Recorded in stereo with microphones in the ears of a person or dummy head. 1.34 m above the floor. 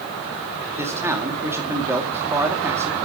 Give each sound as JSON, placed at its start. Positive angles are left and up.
{"t": 0.8, "sound": "a man speaking", "side_deg": -20, "distance_m": 2.0}